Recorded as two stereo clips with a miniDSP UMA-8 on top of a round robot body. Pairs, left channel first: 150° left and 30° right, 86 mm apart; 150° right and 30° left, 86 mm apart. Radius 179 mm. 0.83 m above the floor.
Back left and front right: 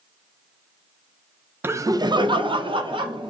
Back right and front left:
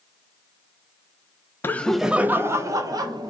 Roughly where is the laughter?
Right.